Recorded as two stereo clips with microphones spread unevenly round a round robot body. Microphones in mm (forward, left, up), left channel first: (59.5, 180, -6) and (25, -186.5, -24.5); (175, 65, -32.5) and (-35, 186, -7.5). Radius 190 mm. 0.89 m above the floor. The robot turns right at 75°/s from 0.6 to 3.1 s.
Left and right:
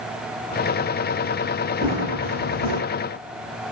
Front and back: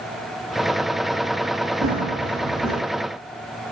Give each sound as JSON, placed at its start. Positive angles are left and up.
{"t": 1.8, "sound": "running footsteps", "azimuth_deg": 180, "distance_m": 2.5}